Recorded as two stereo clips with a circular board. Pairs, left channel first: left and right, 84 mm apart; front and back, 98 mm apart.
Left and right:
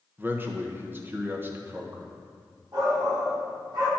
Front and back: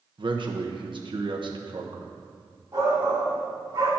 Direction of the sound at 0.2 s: 150° right.